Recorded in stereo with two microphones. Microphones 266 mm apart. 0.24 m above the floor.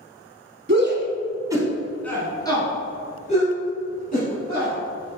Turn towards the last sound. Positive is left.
turn(degrees=35)  # may be behind; listen again after turning